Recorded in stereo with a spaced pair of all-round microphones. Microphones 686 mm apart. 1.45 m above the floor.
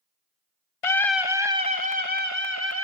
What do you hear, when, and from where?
0.8 s a scream: 50° left (ahead or behind), 0.9 m; by 2.8 s 20° left (ahead or behind), 2.5 m